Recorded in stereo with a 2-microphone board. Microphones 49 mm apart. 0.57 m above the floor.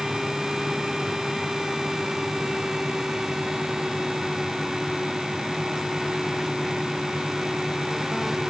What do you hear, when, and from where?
Only background noise.